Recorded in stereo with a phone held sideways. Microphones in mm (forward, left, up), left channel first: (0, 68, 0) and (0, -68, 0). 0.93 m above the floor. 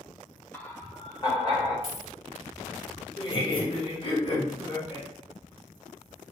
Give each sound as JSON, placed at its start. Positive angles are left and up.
{"t": 0.5, "sound": "laughter", "side_deg": 10, "distance_m": 0.7}
{"t": 1.8, "sound": "a dropped coin", "side_deg": 45, "distance_m": 1.1}
{"t": 3.2, "sound": "laughter", "side_deg": 35, "distance_m": 1.2}